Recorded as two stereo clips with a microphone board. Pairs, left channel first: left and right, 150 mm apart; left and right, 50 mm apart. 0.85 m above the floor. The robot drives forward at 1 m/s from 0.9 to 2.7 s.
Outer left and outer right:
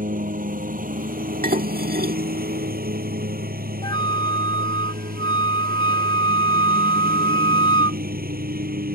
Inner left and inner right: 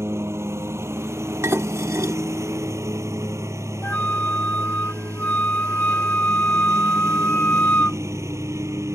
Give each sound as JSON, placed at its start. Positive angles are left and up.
{"t": 0.0, "sound": "a lawn mower", "side_deg": -65}
{"t": 1.4, "sound": "dishes clattering", "side_deg": -70}
{"t": 3.8, "sound": "a flute", "side_deg": 30}